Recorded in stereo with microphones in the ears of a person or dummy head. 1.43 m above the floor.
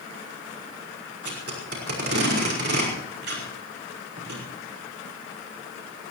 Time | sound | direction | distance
1.2 | tape being pulled | 50° right (ahead or behind) | 5 m